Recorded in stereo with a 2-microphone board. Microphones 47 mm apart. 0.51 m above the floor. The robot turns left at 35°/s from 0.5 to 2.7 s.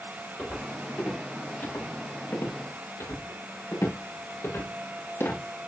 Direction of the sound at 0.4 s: 20° left (ahead or behind).